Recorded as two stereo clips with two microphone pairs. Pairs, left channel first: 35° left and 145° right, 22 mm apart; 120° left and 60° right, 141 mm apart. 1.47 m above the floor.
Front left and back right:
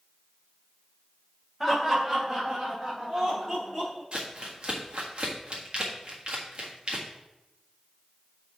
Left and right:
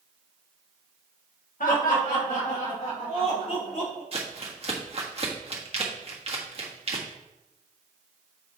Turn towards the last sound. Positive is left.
turn(degrees=-100)